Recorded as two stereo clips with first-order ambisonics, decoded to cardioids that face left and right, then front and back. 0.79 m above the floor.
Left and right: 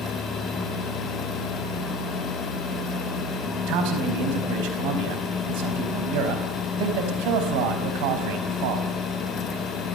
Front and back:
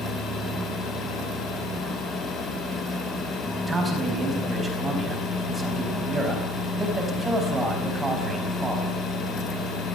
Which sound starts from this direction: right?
A man speaking, at 3.7 s.